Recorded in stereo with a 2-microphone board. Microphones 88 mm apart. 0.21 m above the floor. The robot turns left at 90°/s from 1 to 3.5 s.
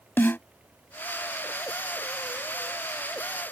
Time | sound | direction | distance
0.2 | a snare drum | 25° left (ahead or behind) | ?